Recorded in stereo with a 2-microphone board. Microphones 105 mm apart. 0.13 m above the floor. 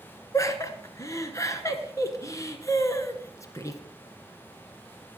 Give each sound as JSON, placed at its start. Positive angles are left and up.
{"t": 0.3, "sound": "laughter", "side_deg": 30, "distance_m": 1.2}